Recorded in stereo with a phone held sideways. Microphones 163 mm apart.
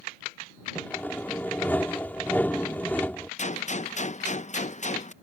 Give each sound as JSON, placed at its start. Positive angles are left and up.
{"t": 0.8, "sound": "sawing", "side_deg": 10}
{"t": 3.4, "sound": "a gunshot", "side_deg": 45}